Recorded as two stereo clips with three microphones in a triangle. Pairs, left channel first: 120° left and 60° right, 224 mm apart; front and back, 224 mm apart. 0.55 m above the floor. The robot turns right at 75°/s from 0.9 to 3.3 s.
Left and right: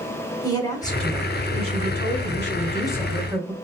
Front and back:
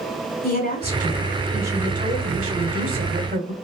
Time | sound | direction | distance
0.4 | a woman speaking | 45° left | 3 m